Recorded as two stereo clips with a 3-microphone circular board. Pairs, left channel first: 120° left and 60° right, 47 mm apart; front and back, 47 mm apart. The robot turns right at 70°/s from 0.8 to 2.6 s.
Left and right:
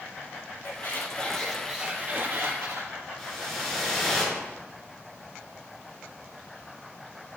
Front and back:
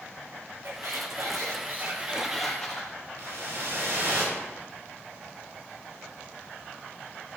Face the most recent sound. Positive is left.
turn(degrees=-150)